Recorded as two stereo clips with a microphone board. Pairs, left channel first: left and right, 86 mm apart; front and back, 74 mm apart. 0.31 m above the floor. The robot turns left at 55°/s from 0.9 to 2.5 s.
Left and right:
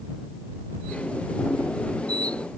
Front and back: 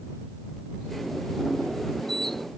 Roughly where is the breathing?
I don't hear breathing.